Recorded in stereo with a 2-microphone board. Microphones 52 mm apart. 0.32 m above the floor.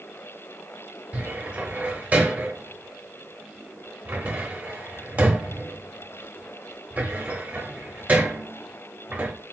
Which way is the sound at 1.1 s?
35° right (ahead or behind).